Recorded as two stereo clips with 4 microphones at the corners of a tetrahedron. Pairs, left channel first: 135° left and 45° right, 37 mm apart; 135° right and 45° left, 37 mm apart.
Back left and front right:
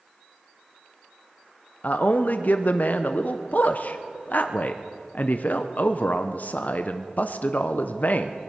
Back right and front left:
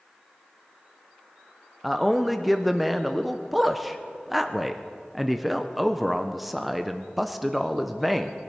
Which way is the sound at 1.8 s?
130° left.